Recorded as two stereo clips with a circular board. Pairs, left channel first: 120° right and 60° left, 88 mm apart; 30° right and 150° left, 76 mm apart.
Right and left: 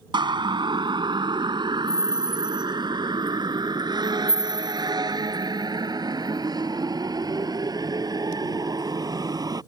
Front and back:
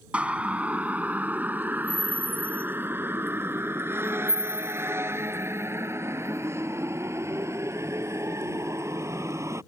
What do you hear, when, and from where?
0.1 s a siren: 80° left; by 9.6 s 100° left